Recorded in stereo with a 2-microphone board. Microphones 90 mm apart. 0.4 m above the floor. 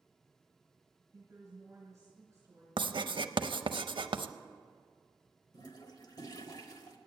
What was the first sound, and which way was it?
A woman speaking, 30° right (ahead or behind).